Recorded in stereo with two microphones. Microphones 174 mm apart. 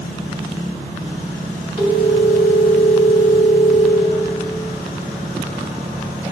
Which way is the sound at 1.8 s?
50° left (ahead or behind).